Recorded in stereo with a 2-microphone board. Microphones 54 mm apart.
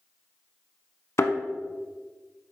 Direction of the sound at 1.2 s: 55° left (ahead or behind).